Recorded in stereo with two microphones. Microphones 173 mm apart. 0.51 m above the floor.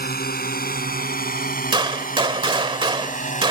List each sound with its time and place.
0.0 s a drone: 60° left (ahead or behind); by 3.5 s 45° left (ahead or behind)
1.7 s a gunshot: 30° right (ahead or behind)